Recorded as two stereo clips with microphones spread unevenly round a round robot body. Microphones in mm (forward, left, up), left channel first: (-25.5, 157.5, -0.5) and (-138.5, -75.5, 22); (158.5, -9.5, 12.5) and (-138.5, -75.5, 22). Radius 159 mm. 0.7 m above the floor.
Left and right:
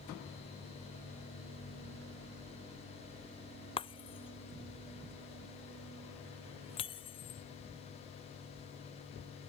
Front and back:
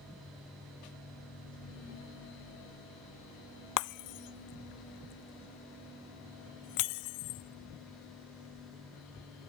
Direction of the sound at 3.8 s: 10° right.